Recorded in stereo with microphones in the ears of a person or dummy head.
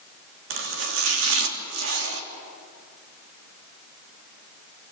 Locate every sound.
0.5 s chopping: 65° right (ahead or behind), 3 m